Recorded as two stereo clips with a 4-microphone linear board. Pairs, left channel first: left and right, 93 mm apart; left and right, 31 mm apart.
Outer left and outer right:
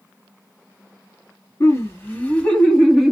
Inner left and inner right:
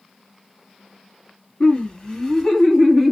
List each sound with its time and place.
1.6 s laughter: 35° left (ahead or behind), 1.8 m; by 3.1 s 5° right (ahead or behind), 1.4 m